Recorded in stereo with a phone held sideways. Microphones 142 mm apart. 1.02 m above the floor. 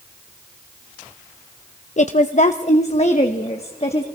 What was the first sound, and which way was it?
A woman speaking, 55° left (ahead or behind).